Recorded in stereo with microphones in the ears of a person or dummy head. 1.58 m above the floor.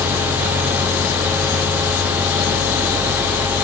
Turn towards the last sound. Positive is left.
No sound to turn to.